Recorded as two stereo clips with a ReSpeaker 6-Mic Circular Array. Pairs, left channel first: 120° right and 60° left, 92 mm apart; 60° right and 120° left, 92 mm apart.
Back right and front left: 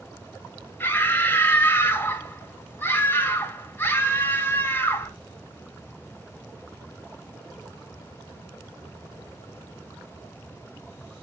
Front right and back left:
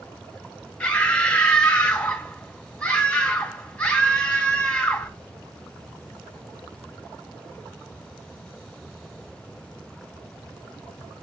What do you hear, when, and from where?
0.8 s a scream: 120° right, 1.5 m